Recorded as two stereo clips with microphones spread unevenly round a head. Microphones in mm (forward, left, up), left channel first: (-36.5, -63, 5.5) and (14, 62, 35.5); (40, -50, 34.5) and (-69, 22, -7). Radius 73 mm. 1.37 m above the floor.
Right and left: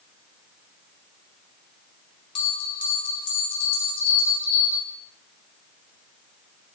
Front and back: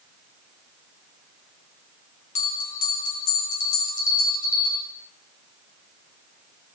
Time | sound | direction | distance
2.4 | a bell | 50° right | 4 m